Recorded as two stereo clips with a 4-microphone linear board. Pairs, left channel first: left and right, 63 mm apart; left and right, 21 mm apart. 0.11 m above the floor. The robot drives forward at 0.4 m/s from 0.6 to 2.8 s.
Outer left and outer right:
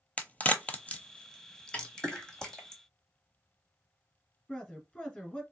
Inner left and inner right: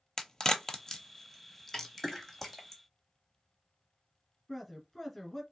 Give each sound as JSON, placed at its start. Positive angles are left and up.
{"t": 0.2, "sound": "a crack", "side_deg": 25, "distance_m": 0.6}
{"t": 1.7, "sound": "a snare drum", "side_deg": 20, "distance_m": 1.1}
{"t": 4.5, "sound": "a man speaking", "side_deg": 15, "distance_m": 1.2}